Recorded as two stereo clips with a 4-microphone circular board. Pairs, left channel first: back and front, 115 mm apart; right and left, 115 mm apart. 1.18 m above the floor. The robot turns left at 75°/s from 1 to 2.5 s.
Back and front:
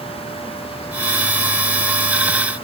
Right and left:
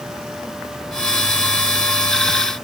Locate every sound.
Only background noise.